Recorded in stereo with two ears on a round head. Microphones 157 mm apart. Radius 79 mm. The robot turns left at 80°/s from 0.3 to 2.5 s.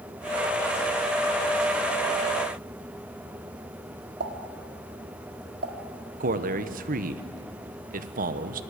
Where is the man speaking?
50° right (ahead or behind), 1.1 m.